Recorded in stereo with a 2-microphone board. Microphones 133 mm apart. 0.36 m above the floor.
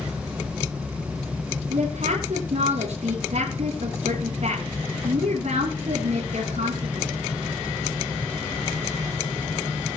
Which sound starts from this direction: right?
A woman speaking, at 1.7 s.